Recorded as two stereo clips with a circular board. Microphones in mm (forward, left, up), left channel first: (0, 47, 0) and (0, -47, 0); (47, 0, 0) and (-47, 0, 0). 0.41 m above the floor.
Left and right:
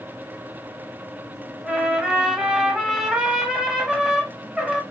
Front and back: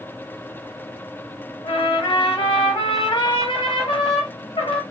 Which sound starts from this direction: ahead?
A trumpet, at 1.6 s.